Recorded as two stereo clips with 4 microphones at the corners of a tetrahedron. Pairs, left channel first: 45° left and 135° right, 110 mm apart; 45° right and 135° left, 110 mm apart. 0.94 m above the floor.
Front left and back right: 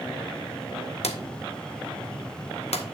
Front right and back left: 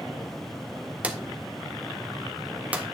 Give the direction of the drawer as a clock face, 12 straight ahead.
10 o'clock.